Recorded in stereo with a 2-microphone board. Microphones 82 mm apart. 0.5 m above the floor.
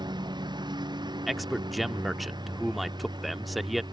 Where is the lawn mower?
60° right (ahead or behind).